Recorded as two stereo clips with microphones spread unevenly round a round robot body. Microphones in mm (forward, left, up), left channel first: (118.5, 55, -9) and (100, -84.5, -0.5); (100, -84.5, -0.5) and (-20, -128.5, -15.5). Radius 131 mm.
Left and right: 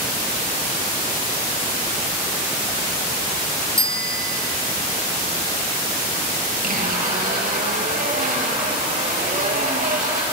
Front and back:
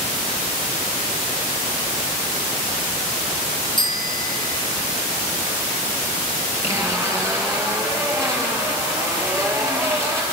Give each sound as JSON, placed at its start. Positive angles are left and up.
{"t": 3.8, "sound": "a bicycle bell", "azimuth_deg": -35, "distance_m": 3.0}
{"t": 6.6, "sound": "a zipper", "azimuth_deg": -90, "distance_m": 6.5}